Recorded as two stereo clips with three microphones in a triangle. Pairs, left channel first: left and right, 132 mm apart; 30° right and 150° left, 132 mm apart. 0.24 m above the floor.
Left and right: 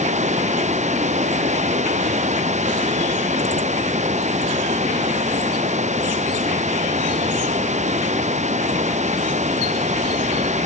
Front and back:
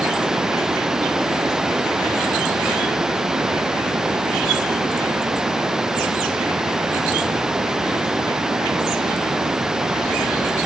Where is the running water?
125° right.